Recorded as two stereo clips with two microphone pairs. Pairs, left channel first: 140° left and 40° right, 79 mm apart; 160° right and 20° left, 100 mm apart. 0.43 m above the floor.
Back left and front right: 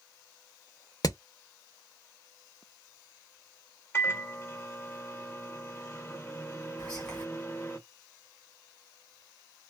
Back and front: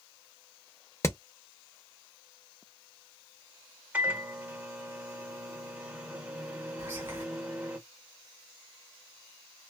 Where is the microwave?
85° left, 0.9 m.